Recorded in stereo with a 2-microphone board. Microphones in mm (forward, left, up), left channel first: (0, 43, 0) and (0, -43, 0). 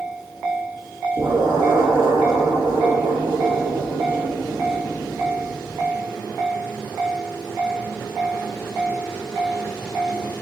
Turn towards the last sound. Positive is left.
turn(degrees=-60)  # may be behind; listen again after turning